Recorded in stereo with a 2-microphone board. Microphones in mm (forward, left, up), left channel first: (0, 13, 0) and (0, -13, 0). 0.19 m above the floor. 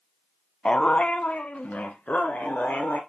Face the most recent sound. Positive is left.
turn(degrees=70)  # may be behind; listen again after turning